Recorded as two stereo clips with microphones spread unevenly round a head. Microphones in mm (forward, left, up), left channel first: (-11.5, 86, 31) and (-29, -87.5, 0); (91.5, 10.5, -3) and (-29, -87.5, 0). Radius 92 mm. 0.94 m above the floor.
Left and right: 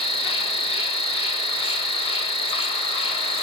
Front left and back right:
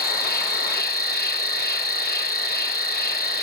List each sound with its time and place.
0.0 s an insect: 20° left, 5.5 m